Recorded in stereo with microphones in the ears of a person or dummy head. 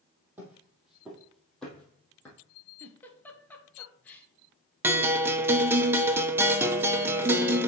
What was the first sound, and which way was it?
Footsteps, 15° right (ahead or behind).